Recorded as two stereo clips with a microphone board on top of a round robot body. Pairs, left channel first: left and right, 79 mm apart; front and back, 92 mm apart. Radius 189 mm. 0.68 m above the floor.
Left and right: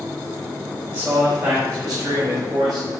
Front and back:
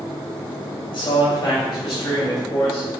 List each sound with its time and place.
0.9 s a man speaking: 30° right, 3.5 m; by 2.9 s 55° right, 4.5 m